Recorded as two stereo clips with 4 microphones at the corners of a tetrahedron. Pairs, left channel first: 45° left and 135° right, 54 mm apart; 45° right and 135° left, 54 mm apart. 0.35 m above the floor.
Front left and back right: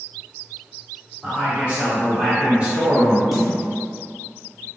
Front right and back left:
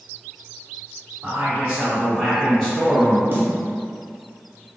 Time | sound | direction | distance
1.2 | a man speaking | 175° left | 1.7 m
3.3 | a snare drum | 140° left | 0.5 m